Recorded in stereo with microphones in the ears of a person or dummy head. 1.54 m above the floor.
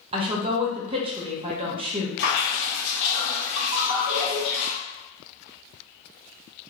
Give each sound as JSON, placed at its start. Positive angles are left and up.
{"t": 0.1, "sound": "a woman speaking", "side_deg": -30, "distance_m": 0.8}
{"t": 2.2, "sound": "dripping", "side_deg": 70, "distance_m": 1.9}
{"t": 3.7, "sound": "a ringtone", "side_deg": -35, "distance_m": 1.7}